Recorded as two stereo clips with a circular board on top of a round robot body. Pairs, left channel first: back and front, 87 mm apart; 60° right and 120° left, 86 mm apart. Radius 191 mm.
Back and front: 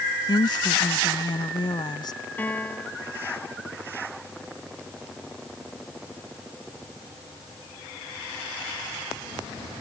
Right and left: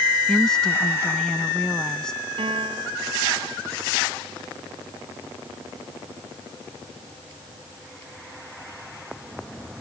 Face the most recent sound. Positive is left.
turn(degrees=110)